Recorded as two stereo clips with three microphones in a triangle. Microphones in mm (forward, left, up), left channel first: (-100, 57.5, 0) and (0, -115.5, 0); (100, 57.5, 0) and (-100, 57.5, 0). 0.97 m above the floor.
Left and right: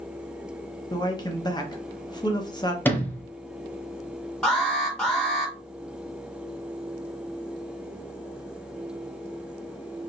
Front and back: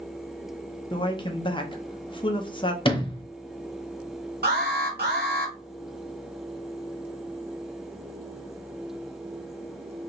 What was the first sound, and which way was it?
A man speaking, 60° left.